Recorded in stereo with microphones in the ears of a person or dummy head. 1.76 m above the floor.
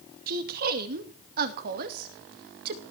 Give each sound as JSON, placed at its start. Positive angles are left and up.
{"t": 0.3, "sound": "a woman speaking", "side_deg": -55, "distance_m": 2.5}